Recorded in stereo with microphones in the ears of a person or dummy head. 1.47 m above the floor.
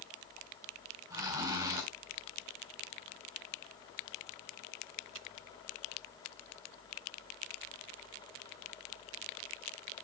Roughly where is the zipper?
Right.